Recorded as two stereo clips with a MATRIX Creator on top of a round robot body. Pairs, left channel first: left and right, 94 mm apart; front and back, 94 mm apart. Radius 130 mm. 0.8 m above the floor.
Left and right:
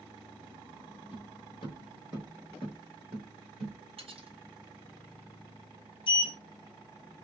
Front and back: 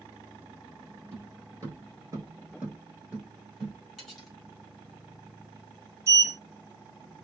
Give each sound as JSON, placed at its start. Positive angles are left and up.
{"t": 1.1, "sound": "footsteps", "azimuth_deg": 115, "distance_m": 1.0}
{"t": 4.0, "sound": "cutlery clinking", "azimuth_deg": -90, "distance_m": 1.3}
{"t": 6.1, "sound": "a sliding door", "azimuth_deg": 120, "distance_m": 0.6}